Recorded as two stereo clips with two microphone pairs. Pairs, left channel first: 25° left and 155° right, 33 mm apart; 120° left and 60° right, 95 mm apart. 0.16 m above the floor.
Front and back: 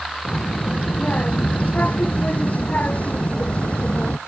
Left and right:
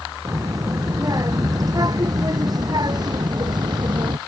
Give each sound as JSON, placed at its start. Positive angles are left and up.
{"t": 0.2, "sound": "a child speaking", "azimuth_deg": -10}